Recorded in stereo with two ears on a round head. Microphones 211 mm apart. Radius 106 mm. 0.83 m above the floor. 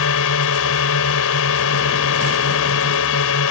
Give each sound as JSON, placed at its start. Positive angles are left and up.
{"t": 0.0, "sound": "a drone", "side_deg": 70}